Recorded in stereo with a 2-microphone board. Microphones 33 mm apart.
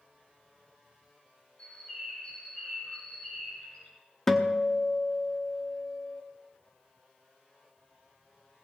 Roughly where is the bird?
Left.